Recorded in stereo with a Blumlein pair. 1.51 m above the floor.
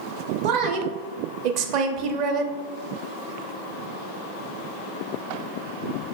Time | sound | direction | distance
0.4 | a woman speaking | 40° right | 0.7 m